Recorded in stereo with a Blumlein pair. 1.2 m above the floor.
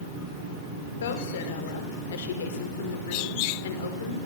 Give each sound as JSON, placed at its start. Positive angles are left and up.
{"t": 1.0, "sound": "a woman speaking", "azimuth_deg": 60, "distance_m": 4.5}